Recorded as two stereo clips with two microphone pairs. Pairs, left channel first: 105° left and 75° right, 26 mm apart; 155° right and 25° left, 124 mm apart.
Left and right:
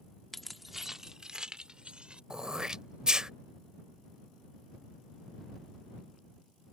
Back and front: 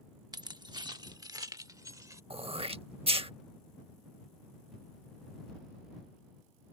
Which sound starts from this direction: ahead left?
Keys jangling, at 0.3 s.